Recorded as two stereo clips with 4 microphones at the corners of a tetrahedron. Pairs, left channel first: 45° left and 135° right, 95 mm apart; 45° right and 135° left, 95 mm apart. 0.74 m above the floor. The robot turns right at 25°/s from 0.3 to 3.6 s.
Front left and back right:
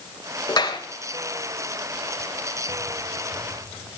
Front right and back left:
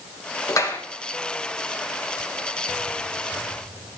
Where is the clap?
5° left, 3.5 m; by 0.8 s 15° left, 3.5 m.